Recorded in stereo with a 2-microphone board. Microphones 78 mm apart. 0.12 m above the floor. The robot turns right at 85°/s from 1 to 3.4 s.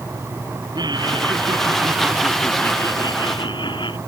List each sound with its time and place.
0.8 s laughter: 115° right; by 4.0 s 90° left